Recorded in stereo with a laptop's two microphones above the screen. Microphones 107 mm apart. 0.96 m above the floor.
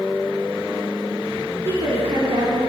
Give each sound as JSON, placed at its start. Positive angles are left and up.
{"t": 1.6, "sound": "a woman speaking", "side_deg": -70, "distance_m": 2.5}